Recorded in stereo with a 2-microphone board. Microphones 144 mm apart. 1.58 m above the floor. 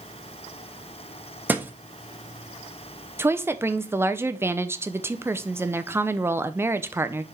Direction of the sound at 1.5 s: 10° right (ahead or behind).